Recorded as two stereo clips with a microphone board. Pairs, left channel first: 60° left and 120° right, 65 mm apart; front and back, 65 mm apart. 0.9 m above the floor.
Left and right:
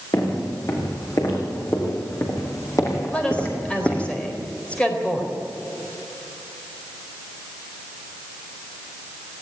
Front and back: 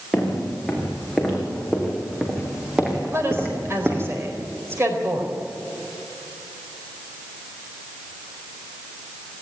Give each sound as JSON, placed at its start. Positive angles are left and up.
{"t": 0.1, "sound": "footsteps", "azimuth_deg": 85, "distance_m": 7.0}
{"t": 3.1, "sound": "a woman speaking", "azimuth_deg": 130, "distance_m": 4.0}